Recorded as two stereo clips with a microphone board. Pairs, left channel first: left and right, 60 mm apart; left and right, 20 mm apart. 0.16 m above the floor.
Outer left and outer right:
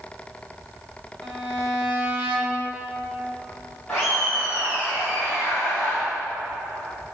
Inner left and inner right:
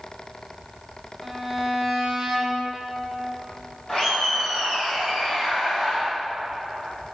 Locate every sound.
1.2 s a violin: 30° right (ahead or behind), 1.9 m
3.9 s laughter: 15° left (ahead or behind), 3 m